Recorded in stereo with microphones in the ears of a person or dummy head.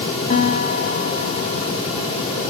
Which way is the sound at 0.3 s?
30° left (ahead or behind).